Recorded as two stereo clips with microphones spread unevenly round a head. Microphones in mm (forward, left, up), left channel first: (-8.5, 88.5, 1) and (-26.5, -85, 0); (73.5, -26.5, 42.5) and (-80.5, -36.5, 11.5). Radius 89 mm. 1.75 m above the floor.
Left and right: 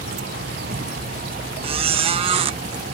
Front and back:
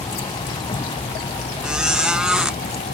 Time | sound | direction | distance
0.0 | a vehicle | 55° right | ?
1.6 | a squeak | 75° right | ?